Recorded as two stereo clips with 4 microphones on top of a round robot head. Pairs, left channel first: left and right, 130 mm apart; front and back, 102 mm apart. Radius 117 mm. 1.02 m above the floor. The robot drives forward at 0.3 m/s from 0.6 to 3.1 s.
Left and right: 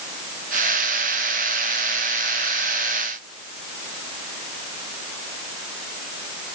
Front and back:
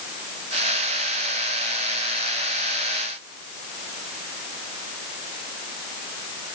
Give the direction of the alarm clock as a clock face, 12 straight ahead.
No alarm clock in this recording.